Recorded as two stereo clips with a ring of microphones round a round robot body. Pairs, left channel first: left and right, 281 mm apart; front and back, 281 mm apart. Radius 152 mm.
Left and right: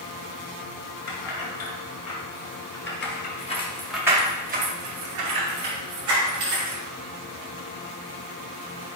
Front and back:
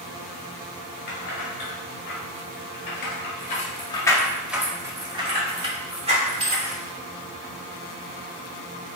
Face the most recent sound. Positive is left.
turn(degrees=-115)